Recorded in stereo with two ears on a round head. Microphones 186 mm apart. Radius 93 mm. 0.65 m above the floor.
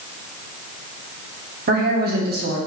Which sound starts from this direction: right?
A woman speaking, at 1.7 s.